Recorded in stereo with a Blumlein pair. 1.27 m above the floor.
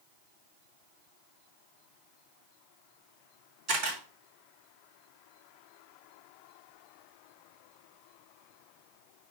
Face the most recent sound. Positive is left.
turn(degrees=-30)